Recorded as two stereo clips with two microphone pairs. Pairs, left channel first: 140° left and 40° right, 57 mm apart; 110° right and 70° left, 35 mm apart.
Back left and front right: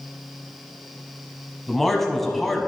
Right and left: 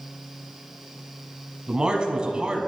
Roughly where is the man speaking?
Ahead left.